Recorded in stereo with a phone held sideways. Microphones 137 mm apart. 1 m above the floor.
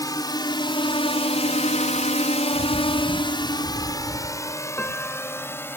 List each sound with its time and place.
0.0 s a drone: 25° left (ahead or behind); by 5.8 s 15° left (ahead or behind)
2.5 s a bird: 25° right (ahead or behind)
4.8 s a piano: 10° left (ahead or behind)